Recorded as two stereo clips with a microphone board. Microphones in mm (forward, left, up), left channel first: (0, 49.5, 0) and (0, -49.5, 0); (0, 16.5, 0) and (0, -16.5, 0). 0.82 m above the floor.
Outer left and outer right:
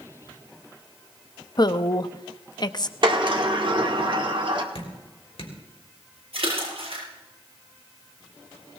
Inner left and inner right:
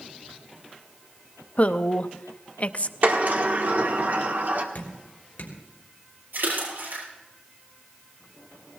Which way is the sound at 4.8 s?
70° left (ahead or behind).